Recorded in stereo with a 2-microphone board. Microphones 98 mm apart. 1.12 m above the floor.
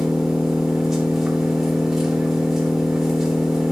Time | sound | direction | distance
0.0 | an engine running | 5° right (ahead or behind) | 2.5 m